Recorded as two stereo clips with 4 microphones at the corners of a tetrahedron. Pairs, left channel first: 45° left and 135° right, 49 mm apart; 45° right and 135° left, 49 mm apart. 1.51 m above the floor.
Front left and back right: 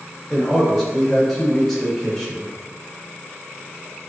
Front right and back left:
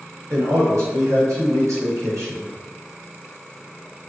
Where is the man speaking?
125° left, 1.5 m.